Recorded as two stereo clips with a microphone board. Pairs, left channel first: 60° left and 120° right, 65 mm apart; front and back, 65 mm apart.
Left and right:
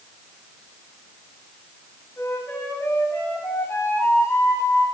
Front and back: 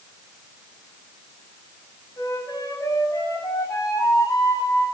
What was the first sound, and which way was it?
A flute, 15° left.